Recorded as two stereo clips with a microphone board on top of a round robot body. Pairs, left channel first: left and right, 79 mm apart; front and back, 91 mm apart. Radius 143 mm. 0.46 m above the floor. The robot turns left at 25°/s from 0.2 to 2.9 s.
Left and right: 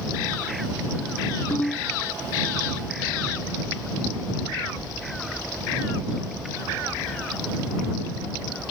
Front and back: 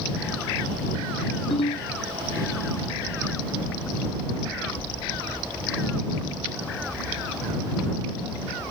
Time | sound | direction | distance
1.5 | a ringtone | 25° left | ?